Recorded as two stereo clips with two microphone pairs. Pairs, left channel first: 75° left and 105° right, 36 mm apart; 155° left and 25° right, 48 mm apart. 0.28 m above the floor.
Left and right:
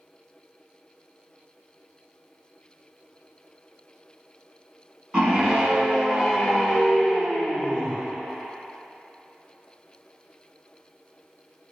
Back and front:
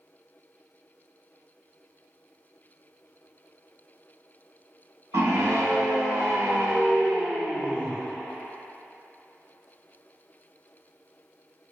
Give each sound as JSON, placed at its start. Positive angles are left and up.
{"t": 5.1, "sound": "a scream", "azimuth_deg": -35, "distance_m": 2.5}